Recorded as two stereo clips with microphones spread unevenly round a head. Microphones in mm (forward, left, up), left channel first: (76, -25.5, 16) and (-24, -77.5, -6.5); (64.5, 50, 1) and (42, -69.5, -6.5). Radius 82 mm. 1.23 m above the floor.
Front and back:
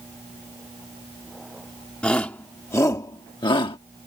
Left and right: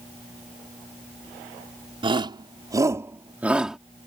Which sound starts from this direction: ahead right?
A shout, at 2.0 s.